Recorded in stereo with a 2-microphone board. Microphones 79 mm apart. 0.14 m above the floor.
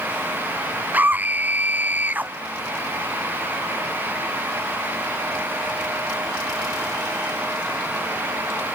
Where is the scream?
20° right (ahead or behind).